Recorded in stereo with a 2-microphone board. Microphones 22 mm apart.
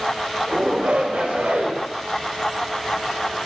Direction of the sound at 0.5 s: 85° right.